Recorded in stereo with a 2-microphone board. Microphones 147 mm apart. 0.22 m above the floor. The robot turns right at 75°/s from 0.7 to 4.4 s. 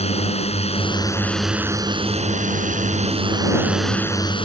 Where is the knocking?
No knocking in this recording.